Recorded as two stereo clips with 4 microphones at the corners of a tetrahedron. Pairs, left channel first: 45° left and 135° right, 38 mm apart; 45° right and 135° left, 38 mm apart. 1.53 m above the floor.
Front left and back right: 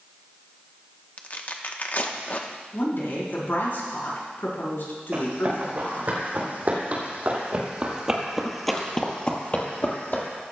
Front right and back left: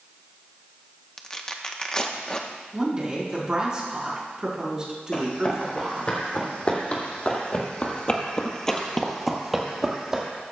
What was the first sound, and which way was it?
Tearing paper, 20° left.